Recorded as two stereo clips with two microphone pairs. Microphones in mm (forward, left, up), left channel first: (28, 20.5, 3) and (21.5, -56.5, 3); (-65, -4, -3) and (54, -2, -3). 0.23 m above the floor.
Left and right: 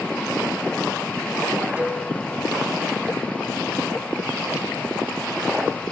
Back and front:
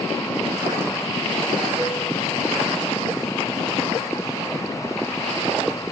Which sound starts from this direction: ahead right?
A cowbell, at 1.8 s.